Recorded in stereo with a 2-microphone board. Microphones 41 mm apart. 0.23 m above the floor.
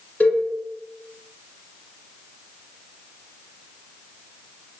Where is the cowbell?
40° left (ahead or behind), 1.7 m.